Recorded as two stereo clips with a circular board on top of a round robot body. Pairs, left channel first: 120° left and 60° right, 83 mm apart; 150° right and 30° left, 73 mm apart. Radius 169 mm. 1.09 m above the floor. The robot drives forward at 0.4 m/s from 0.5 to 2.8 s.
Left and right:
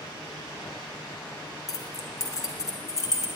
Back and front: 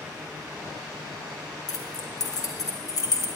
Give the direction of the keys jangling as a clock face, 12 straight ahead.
6 o'clock.